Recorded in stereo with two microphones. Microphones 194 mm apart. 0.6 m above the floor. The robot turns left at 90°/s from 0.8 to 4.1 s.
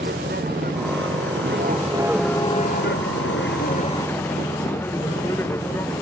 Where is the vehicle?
55° right; by 6.0 s 10° left.